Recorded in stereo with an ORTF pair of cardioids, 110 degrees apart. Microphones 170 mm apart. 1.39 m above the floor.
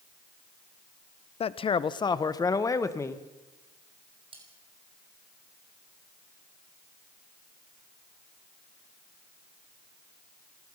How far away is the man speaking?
About 0.9 m.